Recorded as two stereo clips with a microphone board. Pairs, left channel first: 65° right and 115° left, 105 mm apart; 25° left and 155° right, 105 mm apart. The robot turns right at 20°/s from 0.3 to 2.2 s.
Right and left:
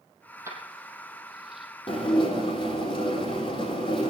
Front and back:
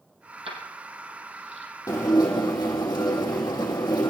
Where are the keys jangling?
175° left, 3.5 m; by 1.7 s 160° right, 3.5 m.